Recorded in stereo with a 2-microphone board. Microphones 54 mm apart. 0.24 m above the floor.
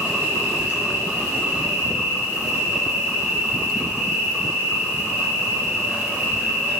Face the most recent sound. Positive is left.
turn(degrees=-35)  # may be behind; listen again after turning